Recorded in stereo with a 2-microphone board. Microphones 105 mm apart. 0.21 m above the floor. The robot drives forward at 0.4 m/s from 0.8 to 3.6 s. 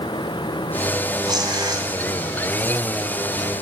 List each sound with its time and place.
1.2 s tearing paper: 40° right (ahead or behind), 1.8 m